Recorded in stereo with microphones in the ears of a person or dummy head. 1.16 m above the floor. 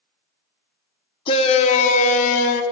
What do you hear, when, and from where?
1.3 s a shout: 30° left (ahead or behind), 0.8 m; by 2.6 s 50° left (ahead or behind), 1.4 m